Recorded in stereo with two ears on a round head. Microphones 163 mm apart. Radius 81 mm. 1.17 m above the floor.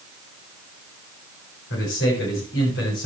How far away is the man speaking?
About 7 m.